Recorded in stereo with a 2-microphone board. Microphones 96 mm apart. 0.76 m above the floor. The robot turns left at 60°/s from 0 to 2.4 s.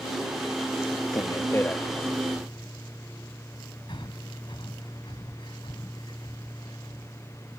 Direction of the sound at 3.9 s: 60° left (ahead or behind).